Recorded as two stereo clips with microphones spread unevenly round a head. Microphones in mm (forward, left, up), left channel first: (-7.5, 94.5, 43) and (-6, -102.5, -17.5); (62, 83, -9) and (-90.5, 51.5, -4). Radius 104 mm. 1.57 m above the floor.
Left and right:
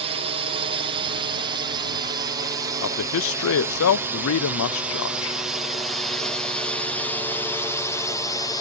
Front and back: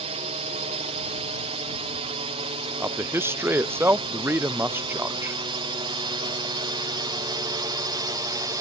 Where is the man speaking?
115° left.